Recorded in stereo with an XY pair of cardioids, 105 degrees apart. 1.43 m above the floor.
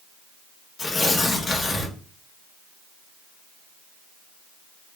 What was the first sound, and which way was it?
Tearing paper, 40° left.